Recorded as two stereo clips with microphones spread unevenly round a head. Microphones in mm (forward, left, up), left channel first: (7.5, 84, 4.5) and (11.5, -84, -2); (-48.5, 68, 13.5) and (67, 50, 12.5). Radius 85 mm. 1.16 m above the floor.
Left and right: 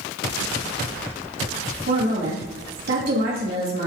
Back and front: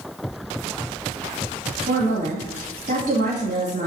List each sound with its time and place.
1.9 s a woman speaking: 55° right, 2.5 m